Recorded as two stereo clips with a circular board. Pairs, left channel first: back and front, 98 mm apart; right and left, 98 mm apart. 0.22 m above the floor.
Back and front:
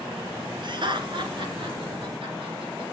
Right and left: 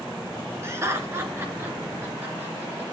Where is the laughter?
30° left, 2.5 m; by 2.8 s 20° left, 4 m.